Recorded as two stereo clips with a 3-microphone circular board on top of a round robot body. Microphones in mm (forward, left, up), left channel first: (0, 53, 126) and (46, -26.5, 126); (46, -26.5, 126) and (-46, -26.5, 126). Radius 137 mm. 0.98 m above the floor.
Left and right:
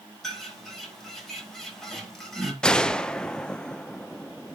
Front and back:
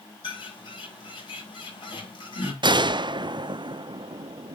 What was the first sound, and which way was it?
A bird, 35° left.